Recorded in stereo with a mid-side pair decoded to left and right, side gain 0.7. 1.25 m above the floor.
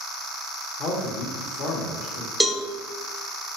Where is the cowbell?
Straight ahead, 0.5 m.